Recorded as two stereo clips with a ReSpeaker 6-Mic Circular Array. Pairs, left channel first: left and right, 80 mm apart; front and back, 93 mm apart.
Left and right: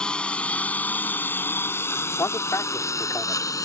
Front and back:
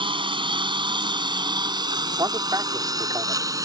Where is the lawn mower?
170° left; by 3.7 s 130° left.